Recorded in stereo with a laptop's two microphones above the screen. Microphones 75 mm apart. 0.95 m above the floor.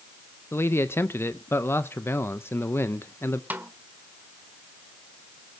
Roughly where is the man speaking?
Left.